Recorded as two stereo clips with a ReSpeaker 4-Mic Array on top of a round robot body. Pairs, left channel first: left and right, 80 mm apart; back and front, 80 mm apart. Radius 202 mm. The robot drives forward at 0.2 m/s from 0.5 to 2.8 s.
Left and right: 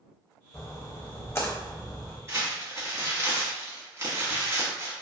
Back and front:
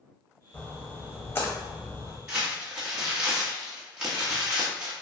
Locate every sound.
0.5 s a splash: 120° left, 0.9 m; by 2.2 s 145° left, 1.1 m
2.3 s crumpling: 70° right, 1.5 m; by 4.9 s 80° right, 1.5 m